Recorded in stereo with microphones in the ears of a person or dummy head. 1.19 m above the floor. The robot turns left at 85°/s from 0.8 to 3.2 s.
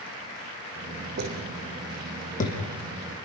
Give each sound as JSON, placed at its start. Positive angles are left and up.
{"t": 1.2, "sound": "footsteps", "side_deg": -65, "distance_m": 4.5}